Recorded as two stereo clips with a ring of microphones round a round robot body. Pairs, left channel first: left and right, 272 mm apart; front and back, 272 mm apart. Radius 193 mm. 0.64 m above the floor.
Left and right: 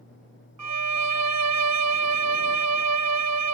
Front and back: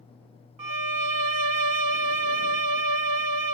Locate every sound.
0.6 s a violin: 140° right